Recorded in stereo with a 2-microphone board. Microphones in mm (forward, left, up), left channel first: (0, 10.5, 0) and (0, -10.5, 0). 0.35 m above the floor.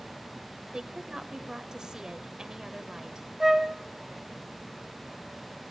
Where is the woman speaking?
30° right (ahead or behind), 1.3 m.